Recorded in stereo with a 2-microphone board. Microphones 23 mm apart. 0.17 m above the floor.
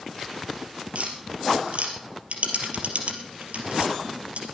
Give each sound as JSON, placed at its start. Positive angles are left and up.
{"t": 0.9, "sound": "tapping", "side_deg": -70, "distance_m": 3.0}